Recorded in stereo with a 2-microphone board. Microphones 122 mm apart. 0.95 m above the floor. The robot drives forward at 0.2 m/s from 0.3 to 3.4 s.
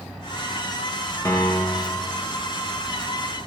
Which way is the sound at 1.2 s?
25° left (ahead or behind).